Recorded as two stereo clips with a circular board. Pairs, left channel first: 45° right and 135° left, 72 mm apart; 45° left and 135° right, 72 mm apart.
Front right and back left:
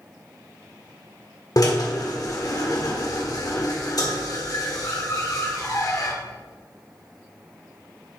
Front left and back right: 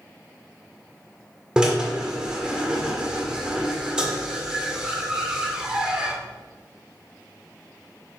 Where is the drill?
60° right, 1.6 m.